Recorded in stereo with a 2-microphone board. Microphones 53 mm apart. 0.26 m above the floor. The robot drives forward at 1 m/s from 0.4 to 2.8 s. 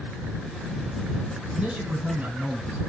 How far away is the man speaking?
About 1.9 m.